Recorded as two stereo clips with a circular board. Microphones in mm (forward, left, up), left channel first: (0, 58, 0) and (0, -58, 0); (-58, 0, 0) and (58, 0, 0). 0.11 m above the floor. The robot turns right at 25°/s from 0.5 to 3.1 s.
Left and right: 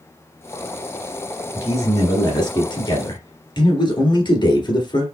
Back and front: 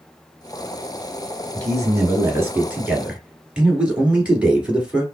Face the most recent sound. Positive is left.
turn(degrees=75)